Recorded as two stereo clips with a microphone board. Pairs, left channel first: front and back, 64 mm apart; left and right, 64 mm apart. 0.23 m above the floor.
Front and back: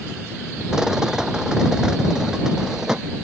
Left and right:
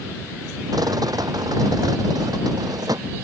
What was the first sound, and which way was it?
A rattle, 100° right.